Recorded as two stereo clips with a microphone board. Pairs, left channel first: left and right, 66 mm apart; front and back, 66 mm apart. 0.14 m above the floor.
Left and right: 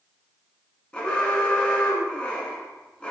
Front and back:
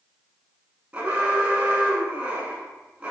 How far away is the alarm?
About 0.8 m.